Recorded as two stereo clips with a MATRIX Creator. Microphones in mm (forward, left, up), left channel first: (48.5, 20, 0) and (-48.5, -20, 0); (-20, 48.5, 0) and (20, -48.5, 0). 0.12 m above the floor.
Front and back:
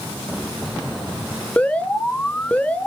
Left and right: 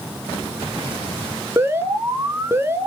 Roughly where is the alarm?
Ahead right.